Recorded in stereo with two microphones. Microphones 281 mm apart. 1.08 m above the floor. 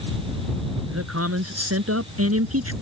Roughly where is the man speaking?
Right.